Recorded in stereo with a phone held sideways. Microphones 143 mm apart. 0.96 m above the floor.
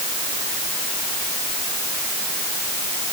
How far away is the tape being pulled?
No tape being pulled in this recording.